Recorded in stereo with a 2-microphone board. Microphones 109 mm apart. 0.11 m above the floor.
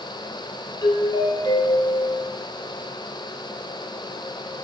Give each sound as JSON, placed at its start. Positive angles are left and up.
{"t": 0.8, "sound": "a doorbell", "side_deg": 40, "distance_m": 3.0}